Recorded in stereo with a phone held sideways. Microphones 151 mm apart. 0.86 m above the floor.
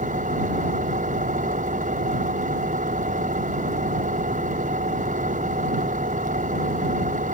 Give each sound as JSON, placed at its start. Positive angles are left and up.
{"t": 0.0, "sound": "an engine running", "side_deg": -55}